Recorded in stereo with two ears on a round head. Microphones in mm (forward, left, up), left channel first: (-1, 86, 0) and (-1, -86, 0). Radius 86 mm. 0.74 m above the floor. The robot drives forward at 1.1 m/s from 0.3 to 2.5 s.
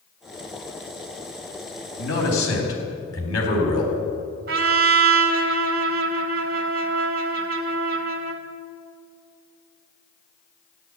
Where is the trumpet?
50° right (ahead or behind), 1.6 m.